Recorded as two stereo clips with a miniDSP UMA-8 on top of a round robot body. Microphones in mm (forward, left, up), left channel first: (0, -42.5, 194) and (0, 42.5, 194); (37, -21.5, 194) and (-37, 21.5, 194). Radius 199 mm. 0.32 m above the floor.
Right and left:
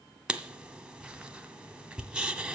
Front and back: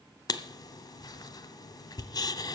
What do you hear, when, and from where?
0.3 s writing: 10° left, 0.8 m